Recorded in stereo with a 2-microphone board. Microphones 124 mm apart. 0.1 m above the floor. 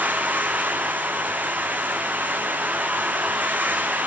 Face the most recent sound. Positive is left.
turn(degrees=-15)  # may be behind; listen again after turning